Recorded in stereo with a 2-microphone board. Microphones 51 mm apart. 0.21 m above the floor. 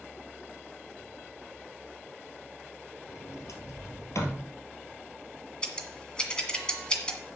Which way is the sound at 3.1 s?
80° left.